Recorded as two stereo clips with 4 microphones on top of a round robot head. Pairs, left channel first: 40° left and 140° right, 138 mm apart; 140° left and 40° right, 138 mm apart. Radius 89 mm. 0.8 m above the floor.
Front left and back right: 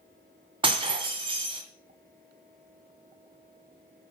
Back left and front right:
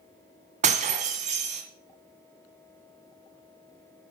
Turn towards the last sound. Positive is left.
turn(degrees=-85)